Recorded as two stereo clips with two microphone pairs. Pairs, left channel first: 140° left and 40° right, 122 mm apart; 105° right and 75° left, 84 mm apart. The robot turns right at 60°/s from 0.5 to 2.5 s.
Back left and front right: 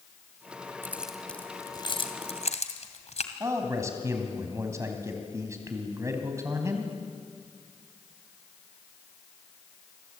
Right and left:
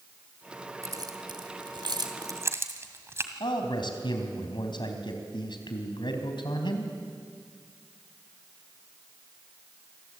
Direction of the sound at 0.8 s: 30° left.